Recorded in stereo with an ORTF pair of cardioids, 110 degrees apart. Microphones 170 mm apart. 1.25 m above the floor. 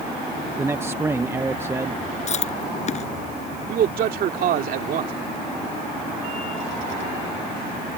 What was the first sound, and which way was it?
A man speaking, 15° right.